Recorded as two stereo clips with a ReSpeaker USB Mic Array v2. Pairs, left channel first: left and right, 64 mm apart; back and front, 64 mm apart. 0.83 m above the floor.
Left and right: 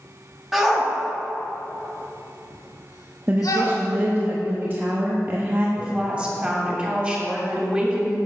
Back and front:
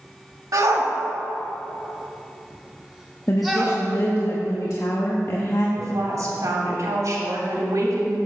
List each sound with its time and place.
0.5 s a shout: 5° right, 1.3 m; by 3.8 s 90° left, 2 m
3.3 s a woman speaking: 145° right, 0.9 m
5.8 s a woman speaking: 20° right, 2.5 m